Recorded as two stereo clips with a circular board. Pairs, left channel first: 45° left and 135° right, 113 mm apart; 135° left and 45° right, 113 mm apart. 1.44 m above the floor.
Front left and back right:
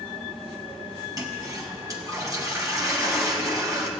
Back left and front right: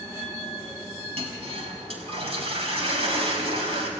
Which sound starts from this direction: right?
A toilet flushing, at 1.2 s.